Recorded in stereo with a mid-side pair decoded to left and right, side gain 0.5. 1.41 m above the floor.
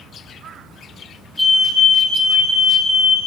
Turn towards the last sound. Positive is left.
turn(degrees=15)